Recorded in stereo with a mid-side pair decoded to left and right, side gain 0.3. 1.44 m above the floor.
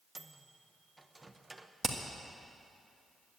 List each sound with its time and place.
0.1 s a microwave: 25° right, 1.1 m
1.8 s hammering: 35° right, 2 m